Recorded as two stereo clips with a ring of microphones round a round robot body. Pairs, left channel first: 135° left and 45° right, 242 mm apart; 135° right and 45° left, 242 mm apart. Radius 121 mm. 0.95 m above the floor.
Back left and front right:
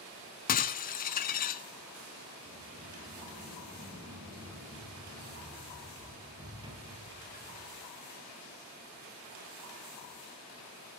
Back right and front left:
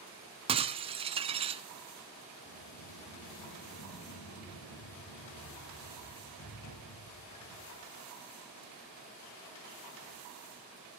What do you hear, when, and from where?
0.5 s breaking glass: 100° left, 1.0 m
2.5 s a sliding door: 115° right, 8 m